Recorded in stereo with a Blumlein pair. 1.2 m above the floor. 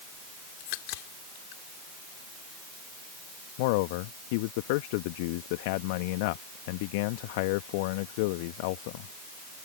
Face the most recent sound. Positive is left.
turn(degrees=45)